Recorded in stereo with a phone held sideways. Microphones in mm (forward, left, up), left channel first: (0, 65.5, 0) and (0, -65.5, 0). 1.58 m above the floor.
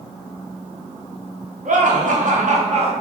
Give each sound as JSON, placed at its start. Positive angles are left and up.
{"t": 1.6, "sound": "laughter", "side_deg": -70, "distance_m": 1.3}